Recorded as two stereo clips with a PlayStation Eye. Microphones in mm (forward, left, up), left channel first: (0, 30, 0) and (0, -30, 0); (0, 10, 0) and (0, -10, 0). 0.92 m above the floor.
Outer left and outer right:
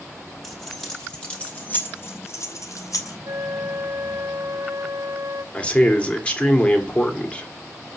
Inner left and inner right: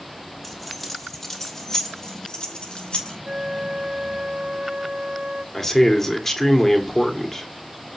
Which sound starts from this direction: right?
A flute, at 3.2 s.